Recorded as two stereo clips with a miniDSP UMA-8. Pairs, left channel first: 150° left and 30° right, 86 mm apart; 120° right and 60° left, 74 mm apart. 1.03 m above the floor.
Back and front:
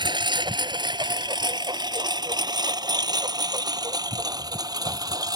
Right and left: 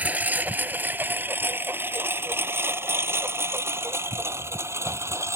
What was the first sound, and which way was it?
A lawn mower, 10° right.